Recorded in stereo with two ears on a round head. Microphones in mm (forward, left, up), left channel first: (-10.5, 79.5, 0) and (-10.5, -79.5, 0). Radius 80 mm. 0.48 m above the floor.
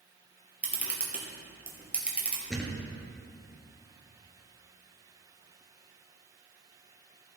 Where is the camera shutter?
10° right (ahead or behind), 2 m.